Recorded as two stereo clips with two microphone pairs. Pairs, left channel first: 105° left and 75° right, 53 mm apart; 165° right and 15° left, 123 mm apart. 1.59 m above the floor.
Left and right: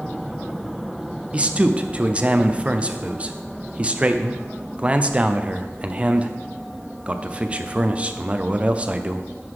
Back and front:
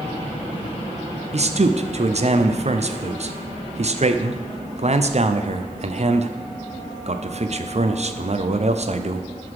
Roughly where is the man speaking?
Ahead.